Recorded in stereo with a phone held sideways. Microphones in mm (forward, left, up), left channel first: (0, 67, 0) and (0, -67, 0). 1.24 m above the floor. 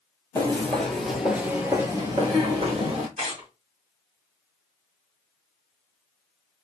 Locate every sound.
0.3 s footsteps: 20° left (ahead or behind), 1.5 m; by 3.1 s 45° right (ahead or behind), 1.8 m
3.2 s tearing paper: 55° right (ahead or behind), 1.7 m